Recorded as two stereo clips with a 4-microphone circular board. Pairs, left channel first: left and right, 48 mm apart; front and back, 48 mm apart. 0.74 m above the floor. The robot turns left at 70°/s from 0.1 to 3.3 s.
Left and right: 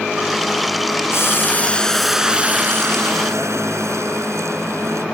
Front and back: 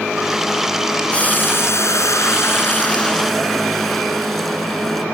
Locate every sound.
1.1 s boiling: 65° left; by 5.0 s 90° right